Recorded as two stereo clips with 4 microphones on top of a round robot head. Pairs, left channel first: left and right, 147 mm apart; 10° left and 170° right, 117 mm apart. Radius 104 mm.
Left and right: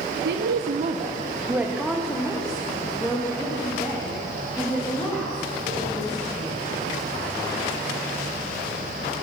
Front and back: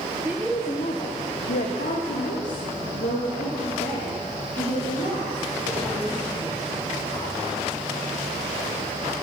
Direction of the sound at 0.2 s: 90° right.